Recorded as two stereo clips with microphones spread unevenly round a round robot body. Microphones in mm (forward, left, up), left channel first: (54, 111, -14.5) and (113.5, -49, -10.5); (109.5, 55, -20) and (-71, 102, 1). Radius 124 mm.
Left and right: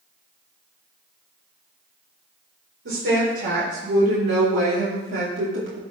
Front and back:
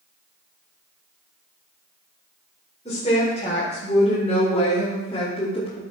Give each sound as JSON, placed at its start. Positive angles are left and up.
{"t": 2.9, "sound": "a woman speaking", "azimuth_deg": -80, "distance_m": 3.5}